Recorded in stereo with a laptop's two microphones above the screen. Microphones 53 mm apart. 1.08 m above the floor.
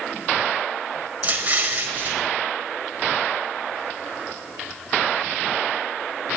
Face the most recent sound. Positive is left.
turn(degrees=-30)  # may be behind; listen again after turning